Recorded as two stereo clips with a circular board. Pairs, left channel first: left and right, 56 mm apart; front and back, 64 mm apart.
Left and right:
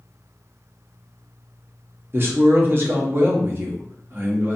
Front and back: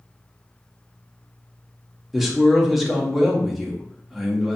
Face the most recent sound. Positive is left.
turn(degrees=-95)